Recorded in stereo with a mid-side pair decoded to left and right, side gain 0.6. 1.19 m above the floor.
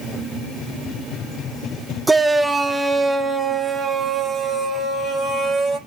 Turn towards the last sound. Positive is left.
turn(degrees=-25)